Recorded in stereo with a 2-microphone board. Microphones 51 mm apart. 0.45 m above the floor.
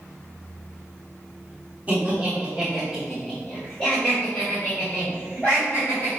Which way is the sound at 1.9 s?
30° right (ahead or behind).